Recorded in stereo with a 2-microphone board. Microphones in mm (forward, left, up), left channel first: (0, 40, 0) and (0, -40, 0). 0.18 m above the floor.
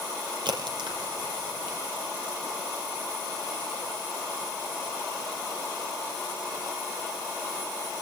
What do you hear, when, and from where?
0.5 s a crack: 75° right (ahead or behind), 5 m